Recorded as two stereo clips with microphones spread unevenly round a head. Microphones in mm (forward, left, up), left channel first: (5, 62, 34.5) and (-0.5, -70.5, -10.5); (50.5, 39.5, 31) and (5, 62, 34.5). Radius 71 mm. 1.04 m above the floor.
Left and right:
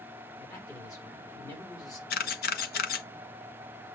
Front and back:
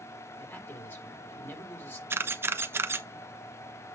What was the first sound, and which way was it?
A man speaking, 20° left.